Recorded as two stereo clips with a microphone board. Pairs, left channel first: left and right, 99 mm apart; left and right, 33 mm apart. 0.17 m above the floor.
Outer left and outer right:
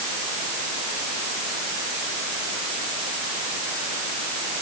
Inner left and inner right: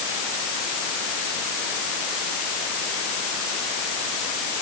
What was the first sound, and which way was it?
Only background noise.